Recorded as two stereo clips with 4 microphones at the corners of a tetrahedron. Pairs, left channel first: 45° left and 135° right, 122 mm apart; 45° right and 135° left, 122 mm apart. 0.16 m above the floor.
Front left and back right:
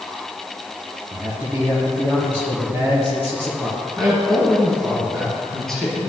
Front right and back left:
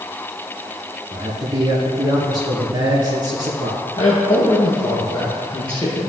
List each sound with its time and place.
1.1 s a man speaking: 165° left, 1.6 m
4.0 s a man speaking: 85° right, 1.9 m